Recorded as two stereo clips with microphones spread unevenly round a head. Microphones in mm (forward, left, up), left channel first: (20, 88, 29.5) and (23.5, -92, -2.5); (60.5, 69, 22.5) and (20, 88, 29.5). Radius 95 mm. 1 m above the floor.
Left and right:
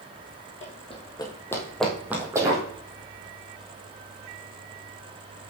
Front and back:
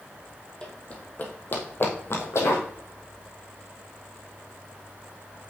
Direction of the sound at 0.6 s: 45° left.